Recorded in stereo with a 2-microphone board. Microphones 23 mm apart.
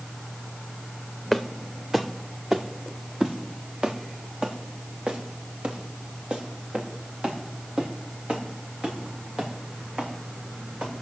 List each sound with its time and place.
1.3 s footsteps: 5° right (ahead or behind), 1.6 m; by 10.9 s 60° right (ahead or behind), 7 m